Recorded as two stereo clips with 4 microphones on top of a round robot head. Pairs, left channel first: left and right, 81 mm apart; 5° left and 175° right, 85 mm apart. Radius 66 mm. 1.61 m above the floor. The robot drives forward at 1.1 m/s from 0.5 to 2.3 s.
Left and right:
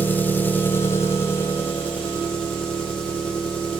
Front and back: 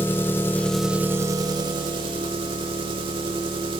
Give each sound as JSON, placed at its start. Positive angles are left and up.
{"t": 0.0, "sound": "an engine running", "azimuth_deg": 45, "distance_m": 0.9}